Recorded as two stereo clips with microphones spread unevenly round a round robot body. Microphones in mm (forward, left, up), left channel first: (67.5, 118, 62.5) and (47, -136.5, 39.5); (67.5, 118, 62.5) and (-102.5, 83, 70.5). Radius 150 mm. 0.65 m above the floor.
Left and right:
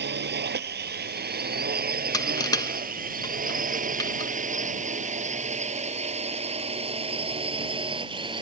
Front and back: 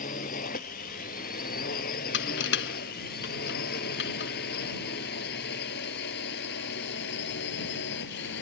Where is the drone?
45° right; by 8.4 s 20° right.